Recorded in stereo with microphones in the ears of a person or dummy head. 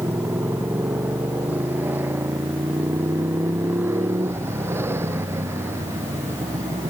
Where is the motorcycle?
10° right (ahead or behind); by 6.9 s 15° right (ahead or behind).